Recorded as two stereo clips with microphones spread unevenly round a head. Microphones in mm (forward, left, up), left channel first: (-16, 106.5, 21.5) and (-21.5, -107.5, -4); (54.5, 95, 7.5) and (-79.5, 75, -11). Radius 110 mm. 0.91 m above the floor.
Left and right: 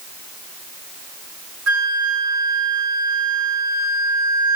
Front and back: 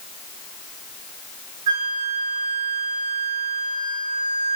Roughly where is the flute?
Right.